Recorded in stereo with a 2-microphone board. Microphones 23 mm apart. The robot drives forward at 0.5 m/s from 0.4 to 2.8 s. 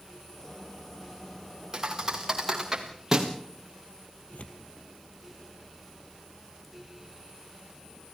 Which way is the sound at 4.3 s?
70° left (ahead or behind).